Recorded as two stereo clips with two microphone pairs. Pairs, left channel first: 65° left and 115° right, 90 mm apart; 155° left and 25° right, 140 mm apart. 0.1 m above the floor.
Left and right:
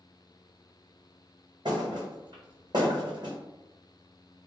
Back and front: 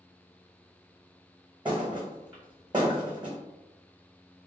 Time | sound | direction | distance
1.6 | a thud | 80° right | 1.3 m